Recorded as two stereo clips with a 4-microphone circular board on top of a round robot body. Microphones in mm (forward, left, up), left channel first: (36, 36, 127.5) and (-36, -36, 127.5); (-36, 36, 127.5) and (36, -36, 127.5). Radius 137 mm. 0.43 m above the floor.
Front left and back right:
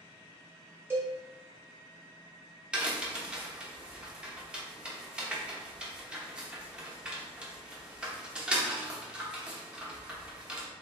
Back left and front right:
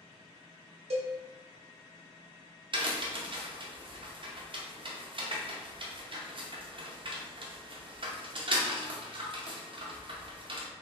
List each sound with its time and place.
0.9 s a cowbell: 65° right, 0.7 m
2.7 s a crack: 55° right, 0.8 m